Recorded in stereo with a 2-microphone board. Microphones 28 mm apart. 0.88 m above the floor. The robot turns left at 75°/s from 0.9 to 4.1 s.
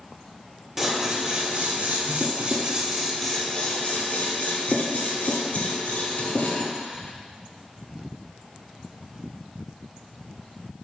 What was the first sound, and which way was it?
Scissors, 15° right (ahead or behind).